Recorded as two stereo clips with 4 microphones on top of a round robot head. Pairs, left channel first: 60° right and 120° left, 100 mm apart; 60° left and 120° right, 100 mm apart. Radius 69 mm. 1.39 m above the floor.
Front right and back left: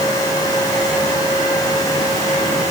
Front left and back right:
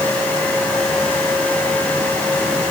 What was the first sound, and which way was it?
Only background noise.